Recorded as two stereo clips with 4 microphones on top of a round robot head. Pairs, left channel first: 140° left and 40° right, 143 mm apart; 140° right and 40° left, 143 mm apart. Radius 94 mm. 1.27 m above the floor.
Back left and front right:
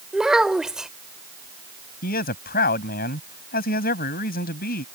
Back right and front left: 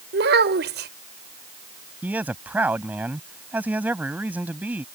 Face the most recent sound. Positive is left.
turn(degrees=120)